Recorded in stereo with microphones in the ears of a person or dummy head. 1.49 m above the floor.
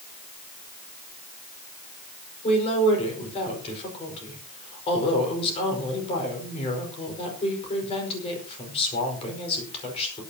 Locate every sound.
2.4 s a woman speaking: 35° left (ahead or behind), 5 m